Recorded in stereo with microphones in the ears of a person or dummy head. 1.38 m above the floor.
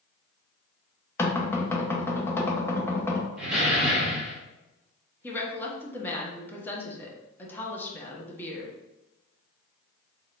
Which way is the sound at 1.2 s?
15° left (ahead or behind).